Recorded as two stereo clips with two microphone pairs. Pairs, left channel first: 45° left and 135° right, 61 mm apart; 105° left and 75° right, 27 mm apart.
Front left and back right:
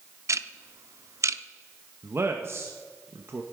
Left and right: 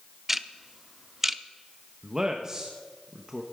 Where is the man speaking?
130° right, 1.1 m.